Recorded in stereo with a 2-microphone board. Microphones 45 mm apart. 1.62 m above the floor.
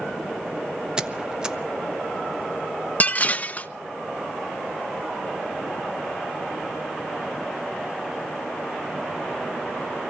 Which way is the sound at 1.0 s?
20° right (ahead or behind).